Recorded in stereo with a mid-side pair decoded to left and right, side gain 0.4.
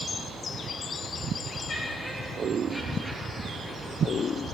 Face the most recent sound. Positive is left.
turn(degrees=-5)